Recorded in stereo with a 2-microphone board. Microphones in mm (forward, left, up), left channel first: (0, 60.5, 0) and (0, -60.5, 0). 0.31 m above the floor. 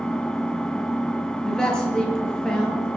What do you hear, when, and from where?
0.0 s an engine running: 5° left (ahead or behind), 0.8 m
1.4 s a man speaking: 5° left (ahead or behind), 5 m